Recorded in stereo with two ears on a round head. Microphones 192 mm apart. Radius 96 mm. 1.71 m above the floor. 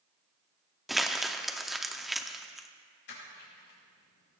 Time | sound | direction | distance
0.9 | crumpling | centre (ahead or behind) | 0.6 m
3.1 | crushing | 60° left (ahead or behind) | 5 m